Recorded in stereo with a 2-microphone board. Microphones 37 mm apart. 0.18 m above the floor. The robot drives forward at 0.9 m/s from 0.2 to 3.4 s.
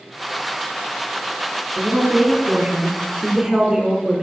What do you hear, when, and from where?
1.8 s a woman speaking: 30° right (ahead or behind), 1.1 m; by 4.2 s 20° right (ahead or behind), 1.7 m